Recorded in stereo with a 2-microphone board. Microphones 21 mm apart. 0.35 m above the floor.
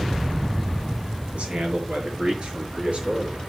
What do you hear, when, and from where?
1.3 s a man speaking: 65° right (ahead or behind), 6 m; by 3.4 s 55° right (ahead or behind), 6.5 m